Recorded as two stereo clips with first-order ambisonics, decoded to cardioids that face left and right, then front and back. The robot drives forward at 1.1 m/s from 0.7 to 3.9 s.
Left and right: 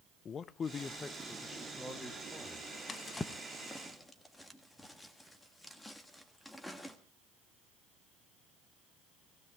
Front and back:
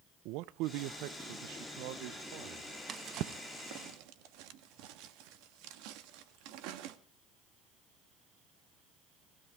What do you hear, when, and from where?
0.2 s a man speaking: 155° left, 0.6 m; by 2.8 s 175° left, 3 m
2.9 s a drawer: 145° left, 0.5 m; by 7.0 s 175° left, 1.4 m